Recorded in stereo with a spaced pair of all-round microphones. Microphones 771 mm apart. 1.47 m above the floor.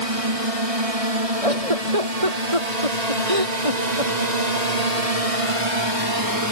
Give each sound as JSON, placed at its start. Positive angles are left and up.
{"t": 0.0, "sound": "a drone", "side_deg": -45}
{"t": 1.4, "sound": "a giggle", "side_deg": -45}